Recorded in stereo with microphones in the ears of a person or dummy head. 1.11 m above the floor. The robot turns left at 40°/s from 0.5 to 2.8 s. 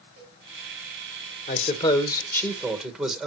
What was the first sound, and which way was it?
A cowbell, 70° right (ahead or behind).